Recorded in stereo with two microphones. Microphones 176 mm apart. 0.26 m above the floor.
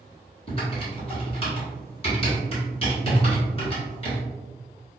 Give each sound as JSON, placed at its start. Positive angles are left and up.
{"t": 0.5, "sound": "typing on a keyboard", "side_deg": 35, "distance_m": 1.3}